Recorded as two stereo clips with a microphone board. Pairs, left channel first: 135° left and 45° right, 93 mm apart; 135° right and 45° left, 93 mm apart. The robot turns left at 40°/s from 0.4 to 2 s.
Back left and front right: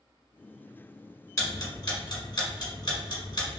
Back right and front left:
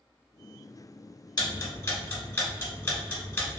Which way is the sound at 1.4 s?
170° right.